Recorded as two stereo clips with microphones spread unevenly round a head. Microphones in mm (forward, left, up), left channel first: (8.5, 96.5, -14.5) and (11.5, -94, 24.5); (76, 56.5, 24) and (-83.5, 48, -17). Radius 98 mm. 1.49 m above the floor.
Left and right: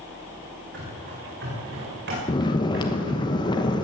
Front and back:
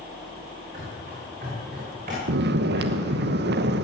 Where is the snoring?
165° left, 1.0 m.